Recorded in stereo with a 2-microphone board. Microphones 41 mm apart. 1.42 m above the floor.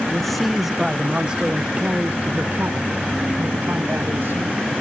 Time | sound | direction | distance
0.1 | a man speaking | 10° left (ahead or behind) | ?